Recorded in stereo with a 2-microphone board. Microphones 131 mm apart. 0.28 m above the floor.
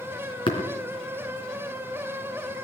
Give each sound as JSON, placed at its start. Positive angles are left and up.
{"t": 0.5, "sound": "tapping", "side_deg": 40, "distance_m": 3.5}